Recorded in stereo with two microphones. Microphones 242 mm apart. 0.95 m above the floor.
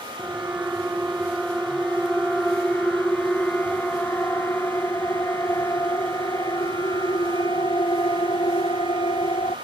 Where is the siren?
5° right (ahead or behind); by 9.5 s 20° left (ahead or behind).